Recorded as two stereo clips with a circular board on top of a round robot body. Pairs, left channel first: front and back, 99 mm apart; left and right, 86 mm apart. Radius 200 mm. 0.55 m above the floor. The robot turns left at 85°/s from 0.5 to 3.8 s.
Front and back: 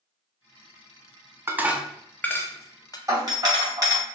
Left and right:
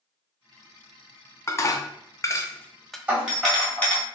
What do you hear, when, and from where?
1.5 s dishes clattering: 130° left, 0.6 m; by 3.0 s straight ahead, 0.6 m
3.1 s a doorbell: 150° right, 1.7 m; by 4.0 s 150° left, 1.7 m